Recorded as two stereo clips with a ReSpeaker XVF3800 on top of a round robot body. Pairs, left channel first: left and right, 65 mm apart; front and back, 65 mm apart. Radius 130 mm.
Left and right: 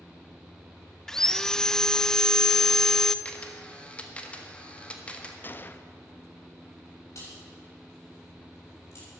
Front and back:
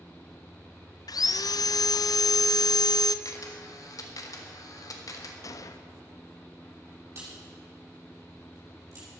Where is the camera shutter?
20° left, 1.7 m.